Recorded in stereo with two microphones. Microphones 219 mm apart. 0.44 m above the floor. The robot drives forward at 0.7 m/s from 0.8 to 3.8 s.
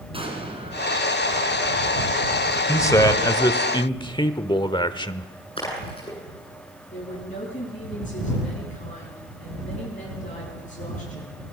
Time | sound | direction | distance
0.1 | an explosion | 25° right (ahead or behind) | 4 m
2.7 | a man speaking | 15° left (ahead or behind) | 1.7 m
5.6 | a splash | 25° left (ahead or behind) | 9 m
6.9 | a woman speaking | 35° left (ahead or behind) | 7 m